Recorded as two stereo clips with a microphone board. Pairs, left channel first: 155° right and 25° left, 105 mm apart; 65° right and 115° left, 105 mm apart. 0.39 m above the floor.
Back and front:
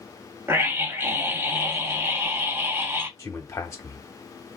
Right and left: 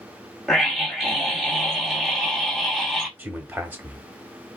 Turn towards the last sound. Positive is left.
turn(degrees=170)